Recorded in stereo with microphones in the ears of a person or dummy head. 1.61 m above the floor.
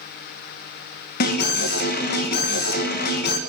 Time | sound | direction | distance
1.2 | an alarm | 55° left (ahead or behind) | 1.7 m